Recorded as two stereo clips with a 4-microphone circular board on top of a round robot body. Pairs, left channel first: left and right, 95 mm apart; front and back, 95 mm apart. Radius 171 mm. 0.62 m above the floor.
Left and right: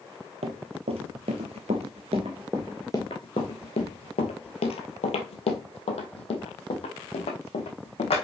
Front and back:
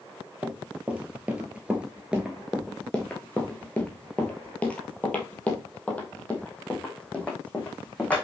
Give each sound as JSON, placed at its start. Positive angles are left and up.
{"t": 0.4, "sound": "running footsteps", "azimuth_deg": -105, "distance_m": 1.3}